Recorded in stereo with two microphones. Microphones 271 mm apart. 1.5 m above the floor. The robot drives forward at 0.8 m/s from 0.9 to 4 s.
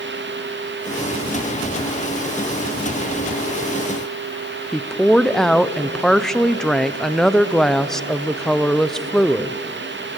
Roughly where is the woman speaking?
Centre.